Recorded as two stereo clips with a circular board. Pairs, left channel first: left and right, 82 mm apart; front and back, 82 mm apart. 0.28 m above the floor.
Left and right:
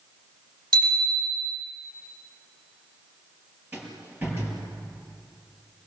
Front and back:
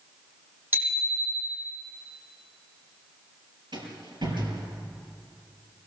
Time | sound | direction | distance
0.7 | a bicycle bell | 110° right | 7.5 m
3.7 | a rattle | 155° right | 5.5 m